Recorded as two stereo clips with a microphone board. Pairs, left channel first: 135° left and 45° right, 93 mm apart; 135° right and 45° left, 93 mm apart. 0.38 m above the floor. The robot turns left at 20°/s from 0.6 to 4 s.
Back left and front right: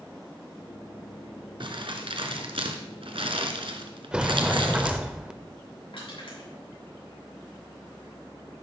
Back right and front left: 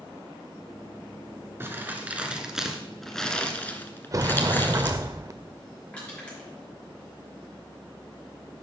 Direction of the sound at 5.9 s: 150° left.